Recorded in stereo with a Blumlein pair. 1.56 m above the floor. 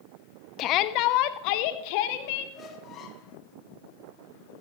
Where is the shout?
35° left, 0.8 m; by 2.5 s 45° left, 2 m.